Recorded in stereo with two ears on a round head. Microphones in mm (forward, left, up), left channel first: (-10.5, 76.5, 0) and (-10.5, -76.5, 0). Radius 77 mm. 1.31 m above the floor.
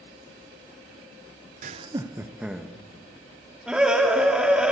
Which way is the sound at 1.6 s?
45° right (ahead or behind).